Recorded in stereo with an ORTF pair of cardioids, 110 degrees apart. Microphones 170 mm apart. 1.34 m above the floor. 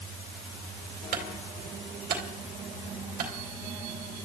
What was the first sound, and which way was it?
A clunk, 60° right.